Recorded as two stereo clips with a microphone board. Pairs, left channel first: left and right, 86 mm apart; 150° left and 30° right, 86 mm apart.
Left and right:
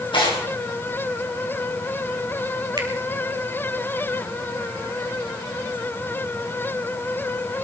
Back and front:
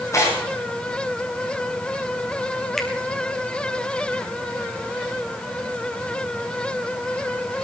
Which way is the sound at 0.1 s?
95° left.